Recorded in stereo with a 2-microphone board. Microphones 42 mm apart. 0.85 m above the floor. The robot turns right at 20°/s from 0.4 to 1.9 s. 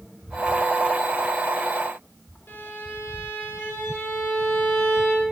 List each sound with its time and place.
2.5 s a violin: 70° left (ahead or behind), 1.2 m